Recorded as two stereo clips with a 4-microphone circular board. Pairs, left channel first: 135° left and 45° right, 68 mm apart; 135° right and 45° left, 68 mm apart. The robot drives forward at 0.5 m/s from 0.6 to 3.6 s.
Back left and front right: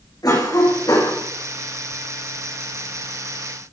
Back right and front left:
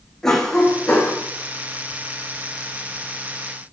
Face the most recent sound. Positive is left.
turn(degrees=150)